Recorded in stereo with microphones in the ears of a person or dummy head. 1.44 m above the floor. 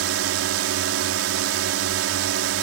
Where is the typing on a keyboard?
I don't hear typing on a keyboard.